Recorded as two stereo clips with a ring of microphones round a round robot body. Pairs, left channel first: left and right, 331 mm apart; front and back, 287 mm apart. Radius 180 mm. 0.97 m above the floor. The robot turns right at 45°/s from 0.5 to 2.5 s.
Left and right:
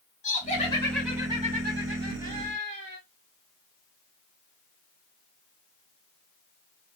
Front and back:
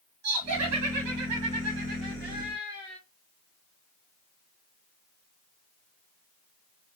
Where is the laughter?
160° left, 2.5 m; by 3.0 s 110° right, 2.5 m.